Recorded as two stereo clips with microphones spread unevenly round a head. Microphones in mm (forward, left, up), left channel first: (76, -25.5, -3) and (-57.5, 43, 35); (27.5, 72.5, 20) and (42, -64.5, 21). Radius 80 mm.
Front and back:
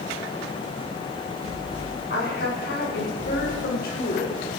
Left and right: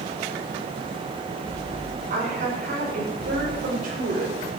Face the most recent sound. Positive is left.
turn(degrees=-70)